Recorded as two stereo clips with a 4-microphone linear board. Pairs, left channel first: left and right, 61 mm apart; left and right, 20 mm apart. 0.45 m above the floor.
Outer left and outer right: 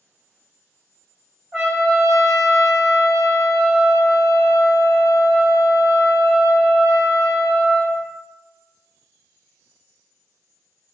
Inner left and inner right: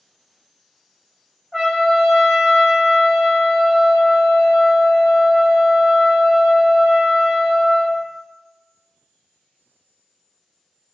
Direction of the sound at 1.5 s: 10° right (ahead or behind).